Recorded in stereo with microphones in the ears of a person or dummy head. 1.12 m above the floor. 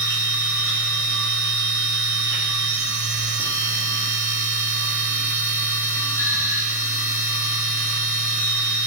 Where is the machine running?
5° left (ahead or behind), 2 m.